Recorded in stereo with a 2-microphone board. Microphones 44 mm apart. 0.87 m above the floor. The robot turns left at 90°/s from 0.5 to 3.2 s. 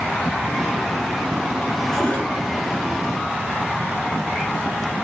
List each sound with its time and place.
1.9 s a cupboard door: straight behind, 5 m; by 2.3 s 150° left, 5 m